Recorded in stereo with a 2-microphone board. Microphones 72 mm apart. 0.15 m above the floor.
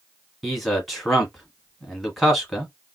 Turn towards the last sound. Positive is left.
turn(degrees=5)  # may be behind; listen again after turning